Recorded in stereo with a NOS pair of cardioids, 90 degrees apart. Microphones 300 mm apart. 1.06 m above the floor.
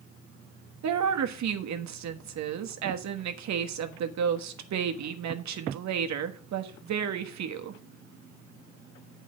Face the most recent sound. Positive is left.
turn(degrees=-65)